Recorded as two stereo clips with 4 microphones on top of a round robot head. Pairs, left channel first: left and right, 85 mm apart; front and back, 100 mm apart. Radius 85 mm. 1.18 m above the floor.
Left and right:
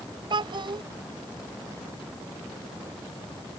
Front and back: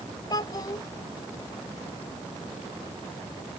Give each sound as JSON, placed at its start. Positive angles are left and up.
{"t": 0.3, "sound": "a child speaking", "azimuth_deg": -60}